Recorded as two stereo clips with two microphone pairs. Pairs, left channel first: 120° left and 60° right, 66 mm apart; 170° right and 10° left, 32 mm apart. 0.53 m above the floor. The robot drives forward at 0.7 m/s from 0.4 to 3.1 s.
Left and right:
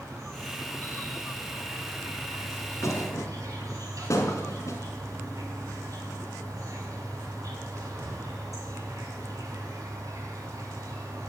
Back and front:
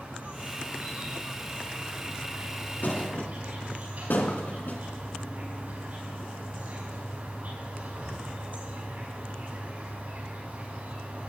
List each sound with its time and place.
0.0 s an insect: 20° right, 6.5 m; by 11.3 s 30° right, 5 m
2.8 s a thud: 160° left, 1.9 m